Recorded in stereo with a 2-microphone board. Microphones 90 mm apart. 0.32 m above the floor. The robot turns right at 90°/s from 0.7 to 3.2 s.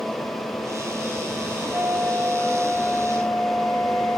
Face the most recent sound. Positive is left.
turn(degrees=20)  # may be behind; listen again after turning